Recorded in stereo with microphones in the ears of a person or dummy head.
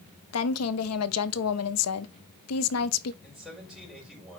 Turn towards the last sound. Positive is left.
turn(degrees=0)  # may be behind; listen again after turning